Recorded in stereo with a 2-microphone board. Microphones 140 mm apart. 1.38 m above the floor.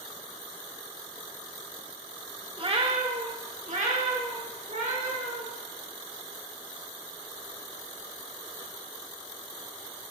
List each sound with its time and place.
2.6 s a cat meowing: 40° right (ahead or behind), 0.8 m; by 5.5 s 70° right (ahead or behind), 2 m